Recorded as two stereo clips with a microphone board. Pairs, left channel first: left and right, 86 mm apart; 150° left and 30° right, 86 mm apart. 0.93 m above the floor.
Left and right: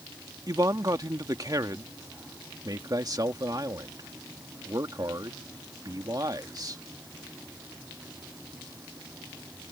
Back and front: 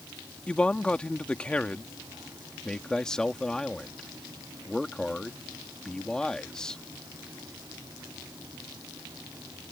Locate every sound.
0.5 s a man speaking: 135° right
2.6 s a man speaking: 130° right